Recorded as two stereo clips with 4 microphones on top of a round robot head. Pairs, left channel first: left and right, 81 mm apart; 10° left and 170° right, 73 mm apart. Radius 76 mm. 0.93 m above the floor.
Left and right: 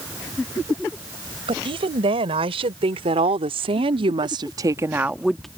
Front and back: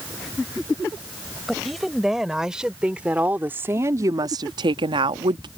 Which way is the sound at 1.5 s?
80° right.